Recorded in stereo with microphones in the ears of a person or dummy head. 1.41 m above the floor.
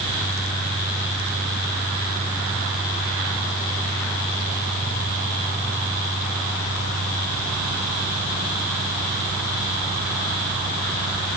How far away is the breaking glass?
I don't hear breaking glass.